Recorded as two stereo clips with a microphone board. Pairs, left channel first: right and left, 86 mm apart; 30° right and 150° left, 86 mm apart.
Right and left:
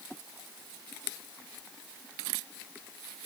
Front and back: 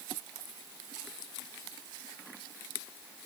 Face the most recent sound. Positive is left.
No sound to turn to.